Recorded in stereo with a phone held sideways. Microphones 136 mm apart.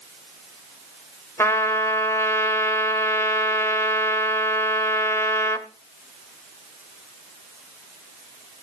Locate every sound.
1.4 s a trumpet: 20° left (ahead or behind), 1.3 m